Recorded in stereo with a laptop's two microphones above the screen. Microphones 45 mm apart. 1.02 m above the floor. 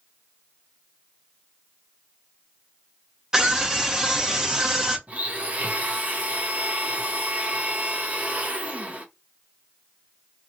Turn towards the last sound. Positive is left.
turn(degrees=-30)  # may be behind; listen again after turning